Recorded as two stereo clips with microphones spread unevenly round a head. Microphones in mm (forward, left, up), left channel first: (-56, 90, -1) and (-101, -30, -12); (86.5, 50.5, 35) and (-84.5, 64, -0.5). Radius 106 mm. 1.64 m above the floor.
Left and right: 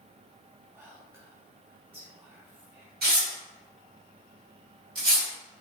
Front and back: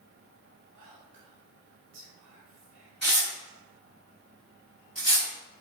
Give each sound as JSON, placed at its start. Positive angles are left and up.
{"t": 0.8, "sound": "whispering", "azimuth_deg": 175, "distance_m": 1.0}
{"t": 3.0, "sound": "tearing paper", "azimuth_deg": -90, "distance_m": 2.0}